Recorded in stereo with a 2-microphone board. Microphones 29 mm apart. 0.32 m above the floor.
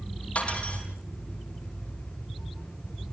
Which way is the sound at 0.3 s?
55° left (ahead or behind).